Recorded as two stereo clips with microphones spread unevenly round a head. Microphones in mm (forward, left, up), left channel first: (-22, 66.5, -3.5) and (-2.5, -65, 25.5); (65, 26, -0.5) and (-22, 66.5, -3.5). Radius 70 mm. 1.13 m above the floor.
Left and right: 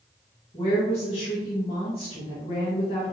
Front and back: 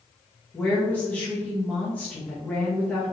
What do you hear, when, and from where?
0.5 s a woman speaking: 50° left, 1.1 m